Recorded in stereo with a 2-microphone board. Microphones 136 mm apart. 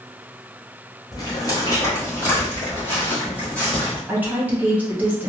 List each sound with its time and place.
1.1 s footsteps: 30° left (ahead or behind), 1.8 m; by 4.0 s 10° left (ahead or behind), 3 m
4.1 s a woman speaking: 10° right (ahead or behind), 1.5 m